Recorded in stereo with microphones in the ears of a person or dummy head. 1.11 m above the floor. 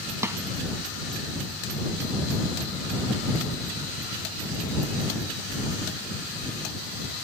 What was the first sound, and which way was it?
A snare drum, 20° right (ahead or behind).